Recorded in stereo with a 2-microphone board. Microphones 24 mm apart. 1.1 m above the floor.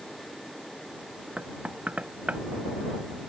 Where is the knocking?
85° right.